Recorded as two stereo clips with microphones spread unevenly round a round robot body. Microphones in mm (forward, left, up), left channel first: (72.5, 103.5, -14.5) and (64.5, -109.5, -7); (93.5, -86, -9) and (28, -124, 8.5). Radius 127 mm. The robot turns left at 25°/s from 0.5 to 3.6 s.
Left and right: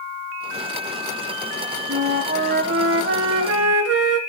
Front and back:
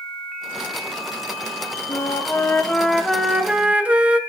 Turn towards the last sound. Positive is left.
turn(degrees=-75)